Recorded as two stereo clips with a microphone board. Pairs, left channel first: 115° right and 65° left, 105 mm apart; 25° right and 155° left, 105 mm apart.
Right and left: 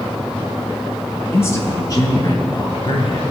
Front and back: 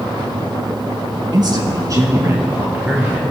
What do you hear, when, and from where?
1.3 s a man speaking: 175° right, 1.8 m; by 3.2 s 125° right, 2 m